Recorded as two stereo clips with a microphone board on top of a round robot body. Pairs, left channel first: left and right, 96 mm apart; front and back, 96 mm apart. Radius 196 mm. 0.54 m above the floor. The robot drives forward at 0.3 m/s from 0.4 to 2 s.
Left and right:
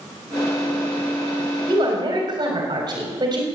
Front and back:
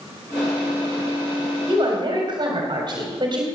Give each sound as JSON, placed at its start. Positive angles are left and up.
{"t": 1.7, "sound": "a woman speaking", "azimuth_deg": -135, "distance_m": 3.5}